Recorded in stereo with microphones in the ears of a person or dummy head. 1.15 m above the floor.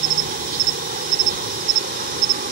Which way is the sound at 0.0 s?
45° right (ahead or behind).